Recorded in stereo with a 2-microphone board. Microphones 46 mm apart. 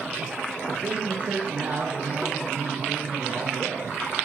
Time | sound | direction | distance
0.7 | a man speaking | 40° right (ahead or behind) | 1.8 m